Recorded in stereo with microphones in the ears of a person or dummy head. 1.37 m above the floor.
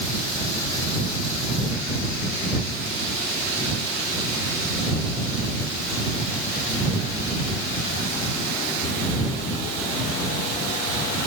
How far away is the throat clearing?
I don't hear throat clearing.